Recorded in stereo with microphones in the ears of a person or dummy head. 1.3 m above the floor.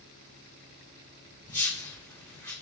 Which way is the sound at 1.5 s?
15° left (ahead or behind).